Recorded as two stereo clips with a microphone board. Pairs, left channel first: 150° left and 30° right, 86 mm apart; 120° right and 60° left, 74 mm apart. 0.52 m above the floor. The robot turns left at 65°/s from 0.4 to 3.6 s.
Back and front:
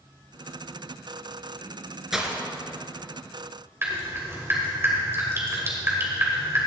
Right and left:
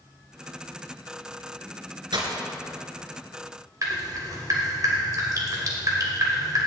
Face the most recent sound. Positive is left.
turn(degrees=30)